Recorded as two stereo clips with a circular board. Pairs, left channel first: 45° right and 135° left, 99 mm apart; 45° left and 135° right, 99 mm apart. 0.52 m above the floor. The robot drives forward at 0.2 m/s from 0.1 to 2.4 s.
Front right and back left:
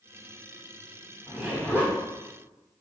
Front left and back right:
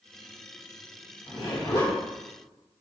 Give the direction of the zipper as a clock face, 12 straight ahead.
10 o'clock.